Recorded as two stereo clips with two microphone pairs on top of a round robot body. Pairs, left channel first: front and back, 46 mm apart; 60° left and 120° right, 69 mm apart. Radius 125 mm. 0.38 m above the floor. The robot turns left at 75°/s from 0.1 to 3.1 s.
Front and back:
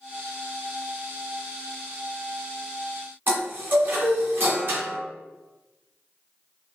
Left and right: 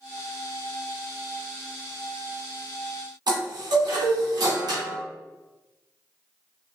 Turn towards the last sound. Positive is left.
turn(degrees=-140)